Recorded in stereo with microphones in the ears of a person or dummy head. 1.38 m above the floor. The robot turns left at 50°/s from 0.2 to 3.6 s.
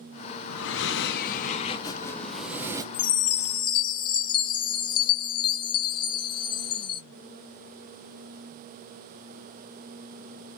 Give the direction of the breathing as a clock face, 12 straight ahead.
9 o'clock.